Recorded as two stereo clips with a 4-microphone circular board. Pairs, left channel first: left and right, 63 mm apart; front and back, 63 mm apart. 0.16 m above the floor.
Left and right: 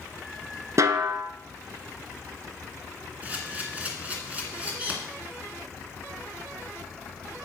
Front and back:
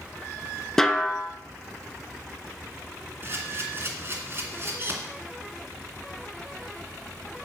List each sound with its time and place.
0.8 s a snare drum: 80° right, 0.8 m
3.2 s a camera shutter: 145° right, 2 m